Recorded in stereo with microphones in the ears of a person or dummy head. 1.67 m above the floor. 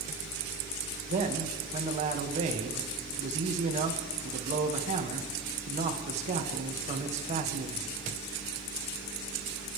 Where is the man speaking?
40° right (ahead or behind), 1.9 m.